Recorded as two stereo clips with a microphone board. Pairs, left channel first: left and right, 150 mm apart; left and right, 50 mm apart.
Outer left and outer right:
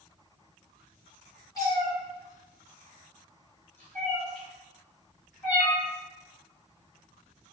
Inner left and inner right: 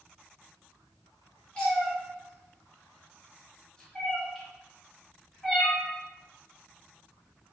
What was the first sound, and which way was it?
A cat meowing, 20° left (ahead or behind).